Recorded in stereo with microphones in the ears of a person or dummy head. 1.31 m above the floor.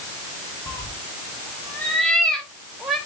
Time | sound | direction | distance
0.7 | a cat meowing | 15° left (ahead or behind) | 0.8 m